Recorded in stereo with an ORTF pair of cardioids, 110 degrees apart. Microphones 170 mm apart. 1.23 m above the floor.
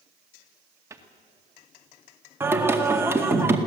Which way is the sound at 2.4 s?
15° right.